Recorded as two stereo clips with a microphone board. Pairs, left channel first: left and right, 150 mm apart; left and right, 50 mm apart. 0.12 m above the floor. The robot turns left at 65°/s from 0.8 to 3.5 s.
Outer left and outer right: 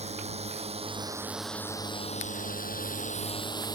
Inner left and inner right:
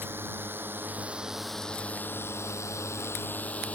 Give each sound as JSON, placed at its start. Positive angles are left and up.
{"t": 0.0, "sound": "a drone", "side_deg": -45}